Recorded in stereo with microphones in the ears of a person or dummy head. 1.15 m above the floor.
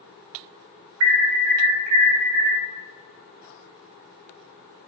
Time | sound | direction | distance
1.0 | an alarm | 75° right (ahead or behind) | 1.2 m